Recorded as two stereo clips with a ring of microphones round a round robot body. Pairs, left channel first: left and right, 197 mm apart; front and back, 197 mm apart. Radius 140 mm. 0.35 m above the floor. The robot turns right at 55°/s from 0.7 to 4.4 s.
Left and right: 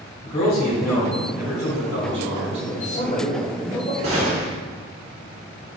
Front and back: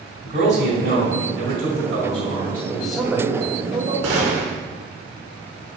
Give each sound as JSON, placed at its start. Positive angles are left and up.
{"t": 0.2, "sound": "a man speaking", "azimuth_deg": 150, "distance_m": 2.5}
{"t": 2.7, "sound": "a man speaking", "azimuth_deg": 75, "distance_m": 1.7}
{"t": 4.0, "sound": "a gunshot", "azimuth_deg": -160, "distance_m": 1.9}